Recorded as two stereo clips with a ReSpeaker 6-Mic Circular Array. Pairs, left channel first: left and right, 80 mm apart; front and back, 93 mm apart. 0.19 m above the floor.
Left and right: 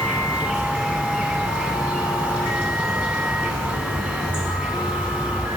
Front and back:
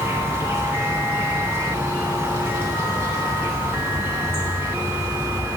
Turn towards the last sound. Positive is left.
turn(degrees=-150)